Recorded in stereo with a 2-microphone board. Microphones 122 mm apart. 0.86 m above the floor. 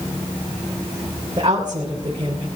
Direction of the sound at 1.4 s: 40° right (ahead or behind).